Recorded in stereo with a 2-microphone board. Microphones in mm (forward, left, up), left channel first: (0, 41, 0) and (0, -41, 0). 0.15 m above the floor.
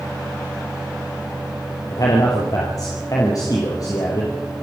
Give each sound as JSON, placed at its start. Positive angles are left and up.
{"t": 1.9, "sound": "a man speaking", "side_deg": 50, "distance_m": 3.5}